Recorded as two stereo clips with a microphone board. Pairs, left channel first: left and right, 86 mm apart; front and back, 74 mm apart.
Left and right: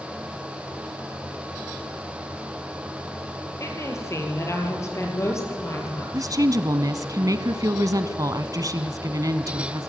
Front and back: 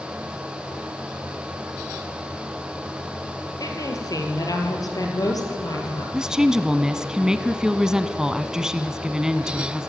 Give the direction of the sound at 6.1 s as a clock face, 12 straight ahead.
3 o'clock.